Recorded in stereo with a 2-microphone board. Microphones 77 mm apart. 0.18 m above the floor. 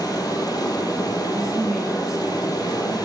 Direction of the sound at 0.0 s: 55° left (ahead or behind).